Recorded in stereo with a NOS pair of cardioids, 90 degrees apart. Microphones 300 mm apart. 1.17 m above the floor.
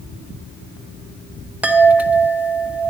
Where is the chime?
5° right, 0.7 m.